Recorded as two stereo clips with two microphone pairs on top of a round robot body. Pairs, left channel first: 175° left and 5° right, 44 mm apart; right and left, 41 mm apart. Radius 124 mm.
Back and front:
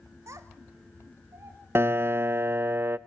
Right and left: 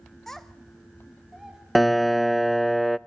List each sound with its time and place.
0.3 s a child speaking: 10° right, 1.1 m; by 1.6 s 10° left, 2.5 m
1.8 s a piano: 15° right, 0.5 m